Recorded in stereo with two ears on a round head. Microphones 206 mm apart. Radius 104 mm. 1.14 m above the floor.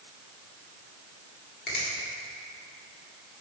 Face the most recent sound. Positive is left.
turn(degrees=45)  # may be behind; listen again after turning